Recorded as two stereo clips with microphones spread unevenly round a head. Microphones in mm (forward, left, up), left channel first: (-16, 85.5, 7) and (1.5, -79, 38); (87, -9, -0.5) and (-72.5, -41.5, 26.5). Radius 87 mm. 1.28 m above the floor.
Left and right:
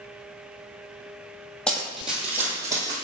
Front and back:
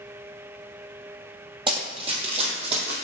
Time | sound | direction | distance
1.7 | running footsteps | 170° right | 1.5 m